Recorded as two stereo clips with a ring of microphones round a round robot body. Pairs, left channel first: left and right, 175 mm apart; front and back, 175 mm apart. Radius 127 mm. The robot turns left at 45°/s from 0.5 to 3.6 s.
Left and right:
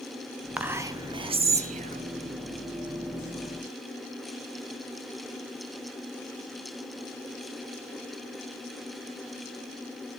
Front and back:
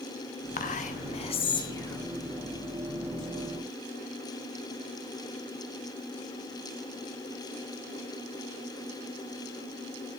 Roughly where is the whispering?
Ahead.